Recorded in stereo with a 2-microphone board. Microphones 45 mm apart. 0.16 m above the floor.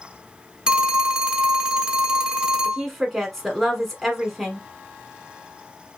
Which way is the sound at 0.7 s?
20° right (ahead or behind).